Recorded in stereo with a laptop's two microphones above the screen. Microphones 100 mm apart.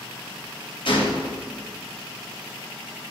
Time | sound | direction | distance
0.8 | a gunshot | 60° left (ahead or behind) | 2 m